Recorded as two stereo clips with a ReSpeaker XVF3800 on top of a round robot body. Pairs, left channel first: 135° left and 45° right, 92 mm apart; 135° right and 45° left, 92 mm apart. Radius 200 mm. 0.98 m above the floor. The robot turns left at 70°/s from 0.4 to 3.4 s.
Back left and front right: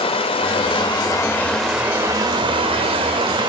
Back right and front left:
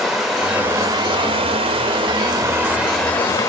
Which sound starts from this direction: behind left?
Running water, at 0.0 s.